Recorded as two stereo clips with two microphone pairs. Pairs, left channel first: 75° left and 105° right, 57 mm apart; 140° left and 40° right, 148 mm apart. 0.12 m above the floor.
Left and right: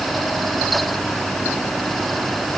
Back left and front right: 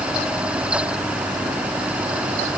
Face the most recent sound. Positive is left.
No sound to turn to.